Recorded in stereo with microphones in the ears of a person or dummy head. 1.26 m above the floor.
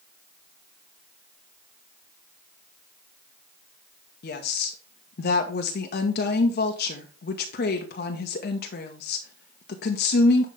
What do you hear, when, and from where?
4.2 s a woman speaking: 45° left (ahead or behind), 1.3 m